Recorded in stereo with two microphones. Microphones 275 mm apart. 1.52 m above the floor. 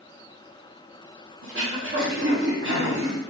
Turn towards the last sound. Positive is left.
turn(degrees=-45)  # may be behind; listen again after turning